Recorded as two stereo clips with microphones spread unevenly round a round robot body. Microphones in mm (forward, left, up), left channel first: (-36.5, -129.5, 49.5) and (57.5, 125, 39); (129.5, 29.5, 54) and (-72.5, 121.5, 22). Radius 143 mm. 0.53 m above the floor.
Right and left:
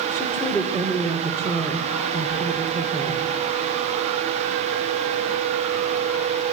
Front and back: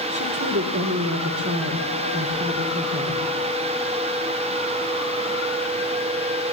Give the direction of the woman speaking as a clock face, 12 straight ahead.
6 o'clock.